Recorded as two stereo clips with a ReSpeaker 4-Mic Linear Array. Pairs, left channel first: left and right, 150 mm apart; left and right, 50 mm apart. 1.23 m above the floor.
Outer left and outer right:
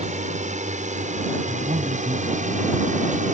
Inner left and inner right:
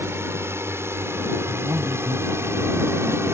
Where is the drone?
55° right (ahead or behind).